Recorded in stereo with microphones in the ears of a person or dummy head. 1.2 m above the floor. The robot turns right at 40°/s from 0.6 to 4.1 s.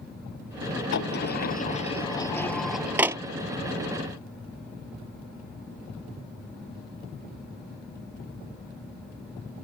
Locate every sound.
0.9 s a sliding door: 75° left (ahead or behind); by 3.2 s 20° right (ahead or behind)